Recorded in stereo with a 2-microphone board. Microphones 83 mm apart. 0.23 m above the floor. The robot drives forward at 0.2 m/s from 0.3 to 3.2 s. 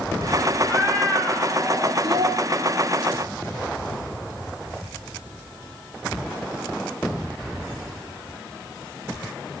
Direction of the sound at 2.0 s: 75° right (ahead or behind).